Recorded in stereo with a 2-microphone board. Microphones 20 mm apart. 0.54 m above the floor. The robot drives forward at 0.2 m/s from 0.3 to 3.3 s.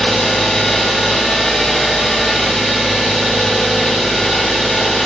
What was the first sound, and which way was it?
An engine running, 70° left (ahead or behind).